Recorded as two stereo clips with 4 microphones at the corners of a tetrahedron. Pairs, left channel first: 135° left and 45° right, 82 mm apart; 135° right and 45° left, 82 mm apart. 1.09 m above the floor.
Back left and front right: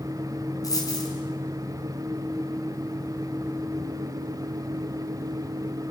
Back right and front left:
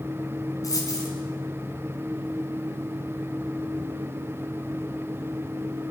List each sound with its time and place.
0.6 s a dropped coin: straight behind, 5 m